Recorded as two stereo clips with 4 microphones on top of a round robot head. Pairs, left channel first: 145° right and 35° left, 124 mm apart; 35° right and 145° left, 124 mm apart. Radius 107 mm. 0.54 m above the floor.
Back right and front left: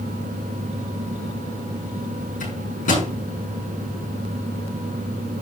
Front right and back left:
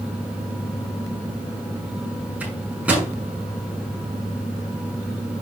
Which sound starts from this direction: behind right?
A microwave, at 2.4 s.